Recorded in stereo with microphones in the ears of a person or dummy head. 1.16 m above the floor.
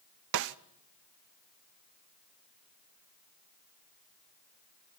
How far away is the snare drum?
About 0.6 m.